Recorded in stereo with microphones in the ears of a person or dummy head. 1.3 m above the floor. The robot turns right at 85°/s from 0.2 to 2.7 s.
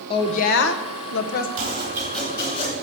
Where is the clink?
No clink in this recording.